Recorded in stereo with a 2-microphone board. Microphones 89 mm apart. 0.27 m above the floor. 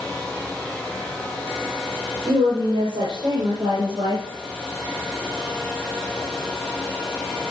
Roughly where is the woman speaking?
Right.